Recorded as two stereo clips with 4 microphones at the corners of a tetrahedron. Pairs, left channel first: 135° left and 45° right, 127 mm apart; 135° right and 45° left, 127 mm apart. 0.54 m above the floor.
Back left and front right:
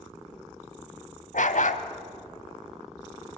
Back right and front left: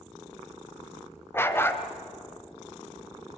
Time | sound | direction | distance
1.3 | a dog barking | 150° left | 1.2 m